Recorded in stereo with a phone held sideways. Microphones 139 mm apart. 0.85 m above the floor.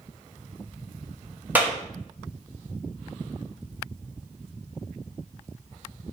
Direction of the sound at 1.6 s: 10° right (ahead or behind).